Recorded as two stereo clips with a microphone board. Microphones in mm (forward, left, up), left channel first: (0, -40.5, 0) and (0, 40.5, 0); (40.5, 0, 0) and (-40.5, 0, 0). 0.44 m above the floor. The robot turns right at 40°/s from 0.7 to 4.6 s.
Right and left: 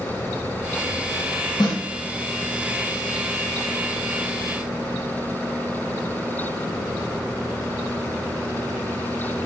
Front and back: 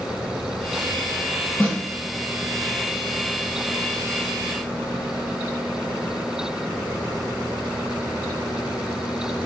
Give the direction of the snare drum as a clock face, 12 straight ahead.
2 o'clock.